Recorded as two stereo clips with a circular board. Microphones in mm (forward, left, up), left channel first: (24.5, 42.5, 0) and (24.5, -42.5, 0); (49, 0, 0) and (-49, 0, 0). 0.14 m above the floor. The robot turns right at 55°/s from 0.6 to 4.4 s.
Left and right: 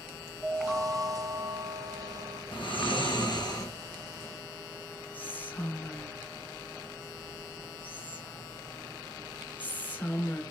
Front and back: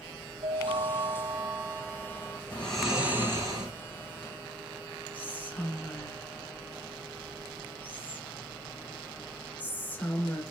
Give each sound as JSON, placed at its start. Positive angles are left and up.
{"t": 0.4, "sound": "a chime", "azimuth_deg": -170, "distance_m": 0.9}
{"t": 2.5, "sound": "snoring", "azimuth_deg": 75, "distance_m": 3.0}
{"t": 5.1, "sound": "whispering", "azimuth_deg": 50, "distance_m": 1.7}